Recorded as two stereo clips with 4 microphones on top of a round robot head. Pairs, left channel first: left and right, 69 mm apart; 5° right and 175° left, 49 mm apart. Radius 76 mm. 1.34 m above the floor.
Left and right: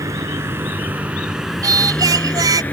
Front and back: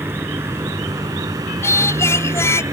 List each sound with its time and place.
0.0 s a vehicle: 130° right; by 2.7 s 155° left
1.6 s singing: 50° right